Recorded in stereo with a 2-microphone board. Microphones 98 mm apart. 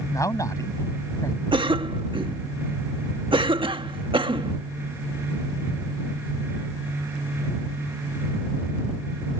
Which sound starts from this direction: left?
A man speaking, at 0.1 s.